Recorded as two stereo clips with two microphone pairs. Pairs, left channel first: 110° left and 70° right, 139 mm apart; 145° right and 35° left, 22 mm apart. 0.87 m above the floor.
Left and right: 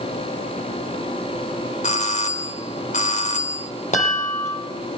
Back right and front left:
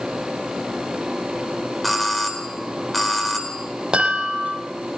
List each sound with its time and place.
1.8 s a doorbell: 135° left, 4 m
3.9 s a chime: 80° left, 10 m